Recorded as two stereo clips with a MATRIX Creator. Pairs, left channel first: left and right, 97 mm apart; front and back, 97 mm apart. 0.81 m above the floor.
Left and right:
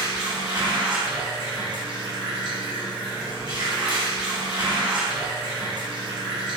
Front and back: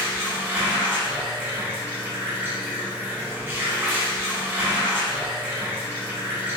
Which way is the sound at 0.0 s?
115° right.